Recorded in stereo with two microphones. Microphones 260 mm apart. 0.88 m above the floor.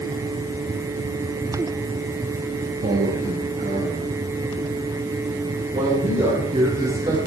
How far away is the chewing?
No chewing in this recording.